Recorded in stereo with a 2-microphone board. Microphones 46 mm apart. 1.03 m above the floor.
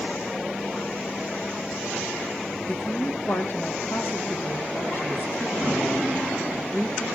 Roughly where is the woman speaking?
Left.